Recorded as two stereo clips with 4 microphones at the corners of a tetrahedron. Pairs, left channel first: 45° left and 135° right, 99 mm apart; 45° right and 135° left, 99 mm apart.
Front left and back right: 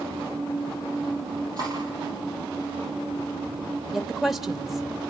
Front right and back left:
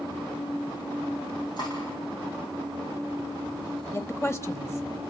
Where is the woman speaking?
50° right, 1.0 m.